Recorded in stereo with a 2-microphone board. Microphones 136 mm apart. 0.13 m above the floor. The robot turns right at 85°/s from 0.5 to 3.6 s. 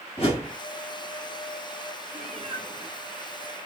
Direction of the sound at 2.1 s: 75° right.